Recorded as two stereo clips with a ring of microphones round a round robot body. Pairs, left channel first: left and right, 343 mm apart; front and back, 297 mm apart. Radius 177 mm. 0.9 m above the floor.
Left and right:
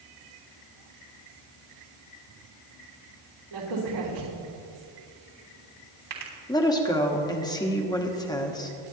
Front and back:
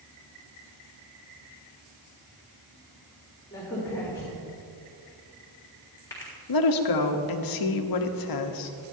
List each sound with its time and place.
3.5 s a crack: 80° right, 3.5 m
6.5 s a woman speaking: 10° left, 1.3 m